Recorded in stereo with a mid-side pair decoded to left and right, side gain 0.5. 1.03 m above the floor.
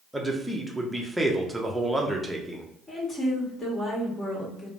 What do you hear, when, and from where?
0.1 s a man speaking: 10° right, 0.7 m
2.9 s a woman speaking: 30° left, 1.5 m